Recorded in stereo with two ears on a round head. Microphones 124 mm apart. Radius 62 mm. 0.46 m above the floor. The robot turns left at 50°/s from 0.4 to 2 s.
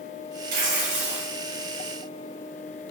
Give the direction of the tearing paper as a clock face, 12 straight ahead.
4 o'clock.